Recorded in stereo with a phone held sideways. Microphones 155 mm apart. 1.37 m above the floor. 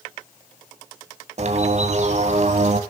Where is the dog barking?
No dog barking in this recording.